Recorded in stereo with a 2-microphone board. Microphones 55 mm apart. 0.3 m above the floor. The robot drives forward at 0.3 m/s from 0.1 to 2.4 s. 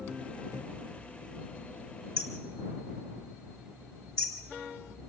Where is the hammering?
10° left (ahead or behind), 3.5 m.